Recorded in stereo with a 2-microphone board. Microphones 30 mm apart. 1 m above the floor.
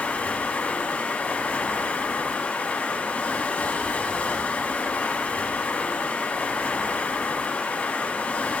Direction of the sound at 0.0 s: 50° left (ahead or behind).